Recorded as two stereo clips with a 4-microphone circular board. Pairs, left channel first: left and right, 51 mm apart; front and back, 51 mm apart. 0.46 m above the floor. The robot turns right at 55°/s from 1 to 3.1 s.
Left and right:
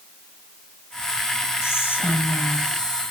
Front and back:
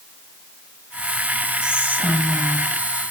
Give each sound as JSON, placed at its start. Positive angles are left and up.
{"t": 1.6, "sound": "whispering", "azimuth_deg": 110, "distance_m": 2.0}